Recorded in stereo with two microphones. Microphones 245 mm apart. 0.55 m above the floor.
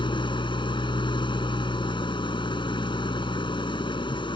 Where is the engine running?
20° left (ahead or behind).